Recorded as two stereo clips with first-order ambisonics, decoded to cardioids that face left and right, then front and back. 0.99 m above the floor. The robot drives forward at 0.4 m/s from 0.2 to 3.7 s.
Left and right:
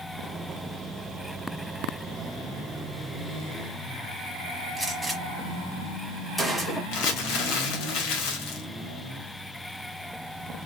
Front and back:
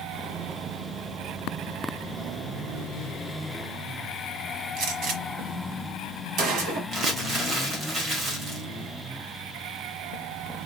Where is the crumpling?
115° left, 1.4 m.